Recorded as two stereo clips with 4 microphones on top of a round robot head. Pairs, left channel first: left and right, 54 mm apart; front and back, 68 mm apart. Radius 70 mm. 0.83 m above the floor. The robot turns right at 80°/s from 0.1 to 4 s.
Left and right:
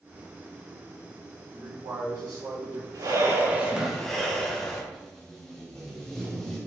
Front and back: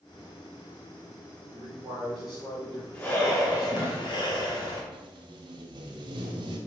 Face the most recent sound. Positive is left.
turn(degrees=175)